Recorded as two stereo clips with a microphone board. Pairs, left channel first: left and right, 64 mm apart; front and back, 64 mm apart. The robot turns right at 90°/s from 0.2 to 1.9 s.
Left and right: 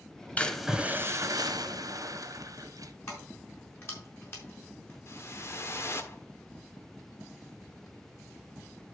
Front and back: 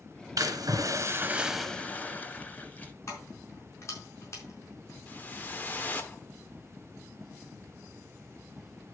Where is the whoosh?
55° left, 1.3 m.